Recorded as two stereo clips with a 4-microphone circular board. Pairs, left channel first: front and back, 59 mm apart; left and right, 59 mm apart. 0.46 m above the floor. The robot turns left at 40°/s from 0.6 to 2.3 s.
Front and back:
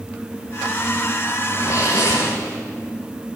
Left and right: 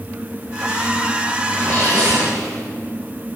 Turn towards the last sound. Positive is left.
turn(degrees=-30)